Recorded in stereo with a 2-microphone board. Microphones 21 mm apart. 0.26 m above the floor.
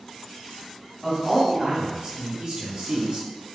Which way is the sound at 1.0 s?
10° right (ahead or behind).